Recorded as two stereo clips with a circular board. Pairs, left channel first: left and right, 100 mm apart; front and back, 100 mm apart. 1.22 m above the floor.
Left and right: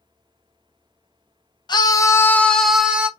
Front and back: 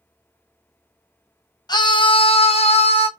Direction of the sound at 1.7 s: 45° left.